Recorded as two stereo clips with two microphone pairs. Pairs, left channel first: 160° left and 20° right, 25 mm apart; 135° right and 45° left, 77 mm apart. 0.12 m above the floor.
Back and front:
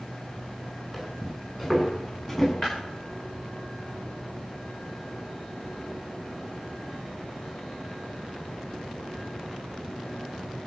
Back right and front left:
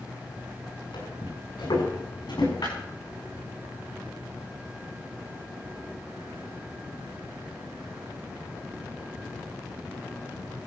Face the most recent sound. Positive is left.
turn(degrees=-145)